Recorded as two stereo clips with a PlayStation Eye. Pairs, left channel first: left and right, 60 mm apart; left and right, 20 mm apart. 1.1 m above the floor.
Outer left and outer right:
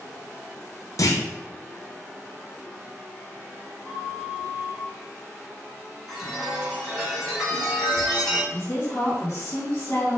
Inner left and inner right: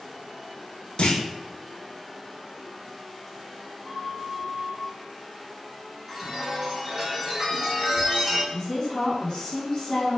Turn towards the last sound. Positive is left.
turn(degrees=45)  # may be behind; listen again after turning